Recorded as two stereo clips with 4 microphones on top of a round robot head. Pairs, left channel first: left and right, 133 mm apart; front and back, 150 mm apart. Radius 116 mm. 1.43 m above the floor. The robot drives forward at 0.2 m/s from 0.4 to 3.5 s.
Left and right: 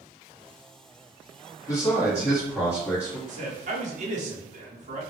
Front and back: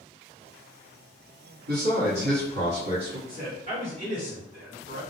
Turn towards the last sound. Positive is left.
turn(degrees=-125)